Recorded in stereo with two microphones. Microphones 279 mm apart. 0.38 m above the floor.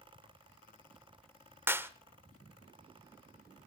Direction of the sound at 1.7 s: 10° right (ahead or behind).